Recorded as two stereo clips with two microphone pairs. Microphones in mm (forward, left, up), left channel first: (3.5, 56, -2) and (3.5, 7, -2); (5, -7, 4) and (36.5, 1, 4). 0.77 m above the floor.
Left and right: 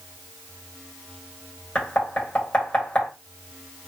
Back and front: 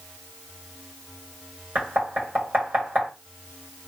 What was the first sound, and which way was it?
Knocking, 25° left.